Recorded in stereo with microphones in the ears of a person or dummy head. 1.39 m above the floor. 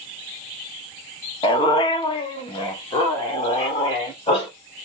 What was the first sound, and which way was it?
A dog barking, 25° left (ahead or behind).